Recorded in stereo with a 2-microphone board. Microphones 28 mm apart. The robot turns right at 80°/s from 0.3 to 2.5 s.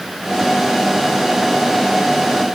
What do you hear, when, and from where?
Only background noise.